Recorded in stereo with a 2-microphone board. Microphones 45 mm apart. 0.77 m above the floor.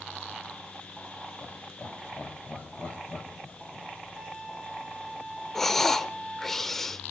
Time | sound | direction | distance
1.4 | laughter | 45° left (ahead or behind) | 3.5 m
4.2 | a violin | 20° left (ahead or behind) | 3.5 m
5.5 | breathing | 10° left (ahead or behind) | 0.6 m